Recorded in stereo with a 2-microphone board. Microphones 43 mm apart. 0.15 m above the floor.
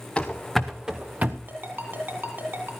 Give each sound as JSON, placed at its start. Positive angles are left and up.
{"t": 0.2, "sound": "running footsteps", "side_deg": 20, "distance_m": 1.2}
{"t": 1.5, "sound": "a ringtone", "side_deg": -50, "distance_m": 2.5}